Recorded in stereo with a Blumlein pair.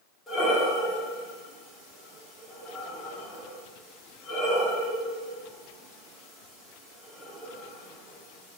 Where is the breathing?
15° left, 3 m.